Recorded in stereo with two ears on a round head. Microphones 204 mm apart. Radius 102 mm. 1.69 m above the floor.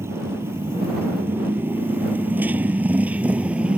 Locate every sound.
0.0 s a motorcycle: 10° right (ahead or behind); by 3.8 s 5° right (ahead or behind)